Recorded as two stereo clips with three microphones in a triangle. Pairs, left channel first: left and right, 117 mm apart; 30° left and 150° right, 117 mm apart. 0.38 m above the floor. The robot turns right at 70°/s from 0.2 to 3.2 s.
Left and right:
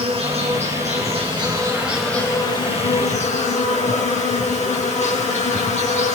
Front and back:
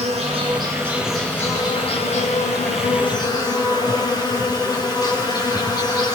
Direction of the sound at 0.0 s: 125° right.